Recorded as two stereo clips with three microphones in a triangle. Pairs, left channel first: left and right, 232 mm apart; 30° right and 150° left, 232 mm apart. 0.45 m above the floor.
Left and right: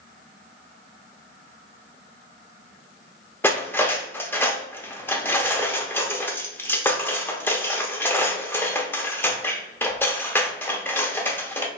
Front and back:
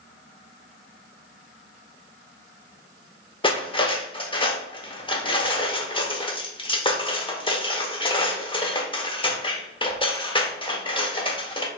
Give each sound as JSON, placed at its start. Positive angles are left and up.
{"t": 3.4, "sound": "cutlery clinking", "azimuth_deg": 15, "distance_m": 0.6}